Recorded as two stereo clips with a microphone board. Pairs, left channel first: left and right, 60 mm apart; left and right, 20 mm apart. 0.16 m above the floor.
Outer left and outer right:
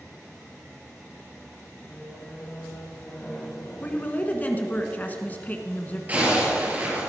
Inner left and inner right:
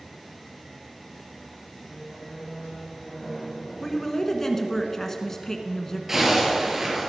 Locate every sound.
1.9 s a squeak: 20° left (ahead or behind), 2 m
3.8 s a woman speaking: 25° left (ahead or behind), 1.4 m
6.1 s a zipper: 25° right (ahead or behind), 4 m